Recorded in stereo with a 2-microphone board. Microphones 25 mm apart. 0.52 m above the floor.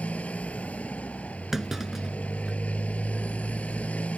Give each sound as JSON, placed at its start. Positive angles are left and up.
{"t": 0.0, "sound": "a motorcycle", "side_deg": 85}
{"t": 1.5, "sound": "a clunk", "side_deg": -15}